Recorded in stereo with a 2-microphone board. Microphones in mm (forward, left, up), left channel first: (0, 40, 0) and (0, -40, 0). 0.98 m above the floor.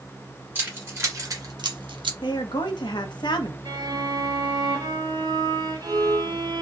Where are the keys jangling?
25° right (ahead or behind), 2.0 m; by 2.1 s 75° right (ahead or behind), 0.8 m.